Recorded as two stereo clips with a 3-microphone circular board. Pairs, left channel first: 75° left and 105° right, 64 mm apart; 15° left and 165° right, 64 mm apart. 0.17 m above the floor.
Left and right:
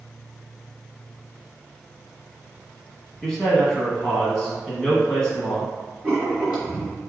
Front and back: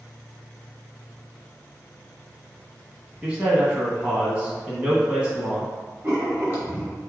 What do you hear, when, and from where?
3.2 s a man speaking: 145° left, 1.1 m
6.0 s writing: 175° right, 1.9 m